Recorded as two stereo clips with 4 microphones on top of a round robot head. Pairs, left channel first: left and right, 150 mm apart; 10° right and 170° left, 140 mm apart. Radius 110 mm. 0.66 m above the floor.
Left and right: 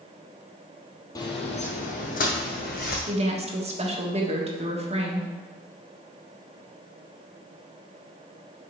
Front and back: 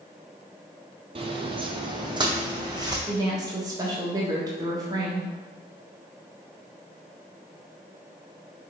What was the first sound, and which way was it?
Footsteps, 145° left.